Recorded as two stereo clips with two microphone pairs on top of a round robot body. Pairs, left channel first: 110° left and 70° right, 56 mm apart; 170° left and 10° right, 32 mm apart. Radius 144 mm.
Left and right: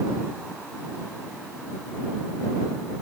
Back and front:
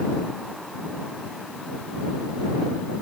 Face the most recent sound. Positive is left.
No sound to turn to.